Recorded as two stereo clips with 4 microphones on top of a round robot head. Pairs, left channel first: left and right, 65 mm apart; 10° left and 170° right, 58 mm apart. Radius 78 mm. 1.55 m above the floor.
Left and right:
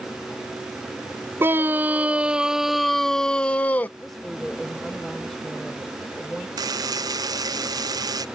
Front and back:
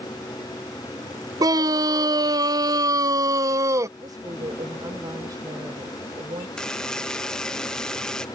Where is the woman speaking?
175° left.